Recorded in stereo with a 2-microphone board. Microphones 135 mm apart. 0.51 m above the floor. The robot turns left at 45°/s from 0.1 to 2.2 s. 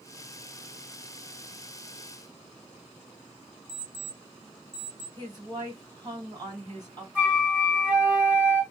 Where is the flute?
10° right (ahead or behind), 2 m.